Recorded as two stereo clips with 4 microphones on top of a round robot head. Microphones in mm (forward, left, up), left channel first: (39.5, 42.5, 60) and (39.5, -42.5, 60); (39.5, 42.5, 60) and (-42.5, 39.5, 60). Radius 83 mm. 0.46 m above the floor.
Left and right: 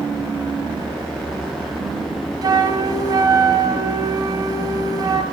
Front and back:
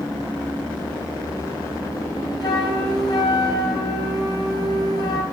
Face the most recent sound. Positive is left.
turn(degrees=-45)